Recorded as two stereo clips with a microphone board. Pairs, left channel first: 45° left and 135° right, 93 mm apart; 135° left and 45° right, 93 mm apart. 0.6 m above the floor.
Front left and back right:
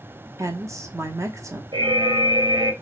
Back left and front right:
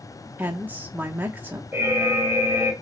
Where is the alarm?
110° right, 0.7 m.